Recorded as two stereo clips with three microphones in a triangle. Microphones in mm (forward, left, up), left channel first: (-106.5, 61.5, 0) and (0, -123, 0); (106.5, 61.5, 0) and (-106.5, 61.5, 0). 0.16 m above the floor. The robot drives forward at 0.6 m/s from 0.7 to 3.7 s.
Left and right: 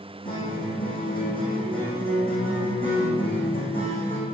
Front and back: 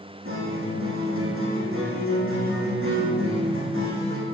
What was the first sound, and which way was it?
A guitar, 175° right.